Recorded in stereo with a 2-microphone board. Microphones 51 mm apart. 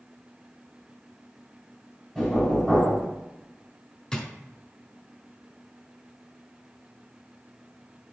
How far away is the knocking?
About 3 m.